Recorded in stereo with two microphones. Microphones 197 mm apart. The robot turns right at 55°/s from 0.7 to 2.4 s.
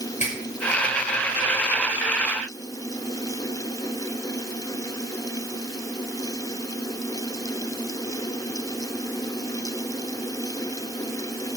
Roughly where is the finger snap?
Left.